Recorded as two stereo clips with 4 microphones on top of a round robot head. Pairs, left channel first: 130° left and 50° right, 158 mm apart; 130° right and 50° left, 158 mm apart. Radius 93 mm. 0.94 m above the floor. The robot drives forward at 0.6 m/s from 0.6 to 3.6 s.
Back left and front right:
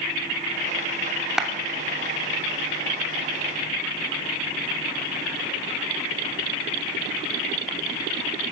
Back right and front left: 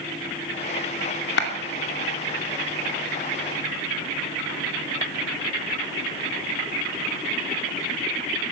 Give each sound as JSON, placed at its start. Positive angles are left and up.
{"t": 1.4, "sound": "a clap", "azimuth_deg": -135, "distance_m": 2.5}